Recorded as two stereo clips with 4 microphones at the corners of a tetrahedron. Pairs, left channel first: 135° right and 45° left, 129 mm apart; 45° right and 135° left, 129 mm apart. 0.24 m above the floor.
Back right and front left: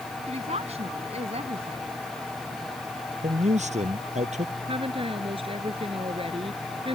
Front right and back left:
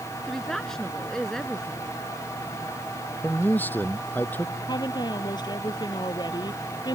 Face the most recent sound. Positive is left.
turn(degrees=10)